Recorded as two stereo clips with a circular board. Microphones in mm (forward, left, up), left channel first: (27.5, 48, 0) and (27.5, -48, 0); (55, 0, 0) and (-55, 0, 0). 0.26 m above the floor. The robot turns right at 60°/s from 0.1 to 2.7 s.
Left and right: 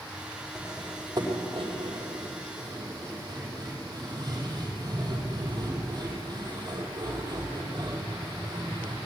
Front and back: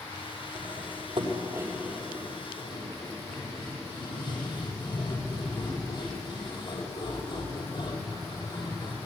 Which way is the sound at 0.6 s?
175° right.